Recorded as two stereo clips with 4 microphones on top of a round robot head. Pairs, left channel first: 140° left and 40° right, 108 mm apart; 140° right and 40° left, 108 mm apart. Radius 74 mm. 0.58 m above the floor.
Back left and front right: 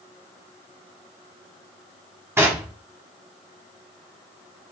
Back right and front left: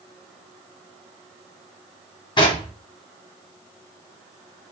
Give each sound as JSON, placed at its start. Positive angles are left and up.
{"t": 2.4, "sound": "knocking", "azimuth_deg": -105, "distance_m": 1.3}